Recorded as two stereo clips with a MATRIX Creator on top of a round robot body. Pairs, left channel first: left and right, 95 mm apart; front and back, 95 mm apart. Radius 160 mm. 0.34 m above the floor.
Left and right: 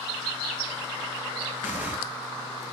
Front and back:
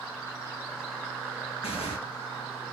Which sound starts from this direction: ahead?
Tearing paper, at 1.6 s.